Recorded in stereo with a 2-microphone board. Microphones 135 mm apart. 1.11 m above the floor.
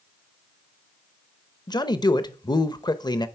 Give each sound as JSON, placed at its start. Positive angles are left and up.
{"t": 1.7, "sound": "a man speaking", "side_deg": 30, "distance_m": 0.8}